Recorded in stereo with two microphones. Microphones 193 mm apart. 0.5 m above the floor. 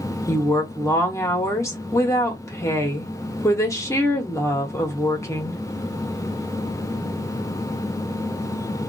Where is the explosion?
No explosion in this recording.